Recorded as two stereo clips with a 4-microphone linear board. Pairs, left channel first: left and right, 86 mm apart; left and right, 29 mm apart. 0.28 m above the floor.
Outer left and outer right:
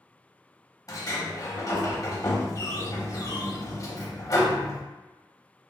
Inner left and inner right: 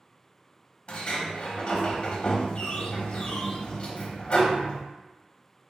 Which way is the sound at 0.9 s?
45° left (ahead or behind).